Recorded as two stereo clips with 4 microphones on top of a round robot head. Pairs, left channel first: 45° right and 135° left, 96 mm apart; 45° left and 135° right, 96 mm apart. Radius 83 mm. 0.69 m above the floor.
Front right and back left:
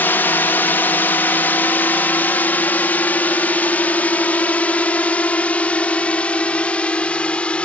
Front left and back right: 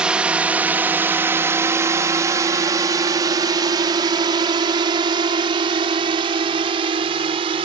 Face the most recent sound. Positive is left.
turn(degrees=-120)